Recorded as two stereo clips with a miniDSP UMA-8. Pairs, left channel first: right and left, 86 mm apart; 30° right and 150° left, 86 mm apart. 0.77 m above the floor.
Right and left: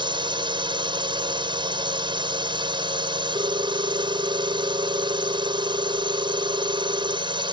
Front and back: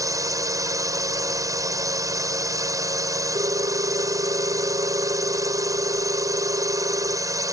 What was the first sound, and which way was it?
A drone, 105° left.